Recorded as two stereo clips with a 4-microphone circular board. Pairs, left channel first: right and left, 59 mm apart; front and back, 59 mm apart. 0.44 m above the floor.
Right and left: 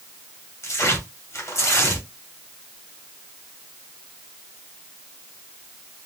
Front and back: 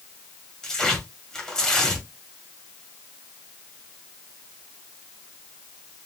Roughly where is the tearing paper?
Right.